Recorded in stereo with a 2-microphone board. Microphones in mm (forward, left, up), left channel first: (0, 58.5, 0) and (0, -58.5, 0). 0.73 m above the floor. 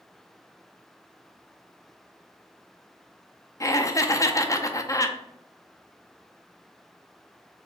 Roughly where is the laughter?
Left.